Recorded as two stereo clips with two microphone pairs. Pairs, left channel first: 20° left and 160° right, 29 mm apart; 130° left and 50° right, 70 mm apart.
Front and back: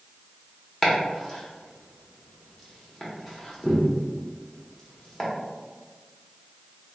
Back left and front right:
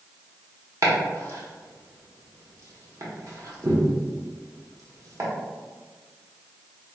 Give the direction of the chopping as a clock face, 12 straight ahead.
1 o'clock.